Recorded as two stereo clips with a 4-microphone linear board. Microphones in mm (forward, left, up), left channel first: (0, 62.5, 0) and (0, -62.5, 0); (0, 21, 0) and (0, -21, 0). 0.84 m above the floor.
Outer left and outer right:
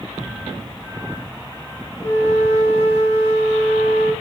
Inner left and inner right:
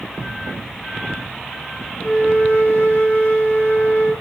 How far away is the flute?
About 1.5 m.